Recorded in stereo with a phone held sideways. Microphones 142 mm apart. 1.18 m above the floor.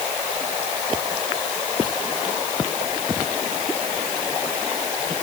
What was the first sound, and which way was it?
Only background noise.